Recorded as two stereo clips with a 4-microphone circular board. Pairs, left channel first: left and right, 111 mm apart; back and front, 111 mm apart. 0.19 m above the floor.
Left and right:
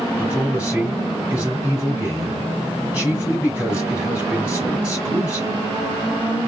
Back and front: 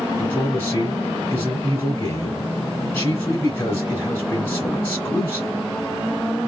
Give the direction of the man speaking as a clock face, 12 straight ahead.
5 o'clock.